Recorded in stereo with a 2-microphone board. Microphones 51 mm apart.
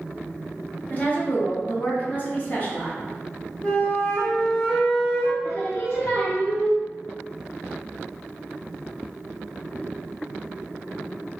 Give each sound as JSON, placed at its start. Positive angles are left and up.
{"t": 0.9, "sound": "a woman speaking", "side_deg": 35, "distance_m": 1.2}
{"t": 3.6, "sound": "a flute", "side_deg": 20, "distance_m": 1.7}
{"t": 5.4, "sound": "singing", "side_deg": 55, "distance_m": 1.6}